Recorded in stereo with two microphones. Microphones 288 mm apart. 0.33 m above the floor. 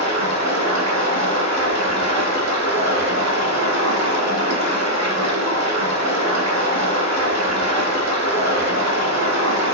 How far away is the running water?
About 0.8 m.